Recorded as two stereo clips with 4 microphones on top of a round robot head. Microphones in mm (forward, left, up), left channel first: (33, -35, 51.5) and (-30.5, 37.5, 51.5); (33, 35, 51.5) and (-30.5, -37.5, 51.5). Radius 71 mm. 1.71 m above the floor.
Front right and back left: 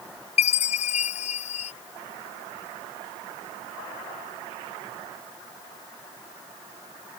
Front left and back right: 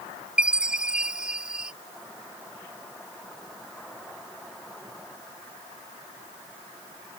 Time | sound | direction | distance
0.4 | a chime | 50° right | ?